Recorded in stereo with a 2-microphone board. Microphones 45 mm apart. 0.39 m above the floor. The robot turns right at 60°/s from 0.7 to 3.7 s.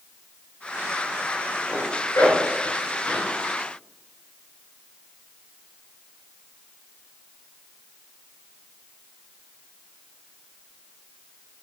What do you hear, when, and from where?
1.7 s a zipper: 65° left (ahead or behind), 6 m; by 3.3 s 20° left (ahead or behind), 6 m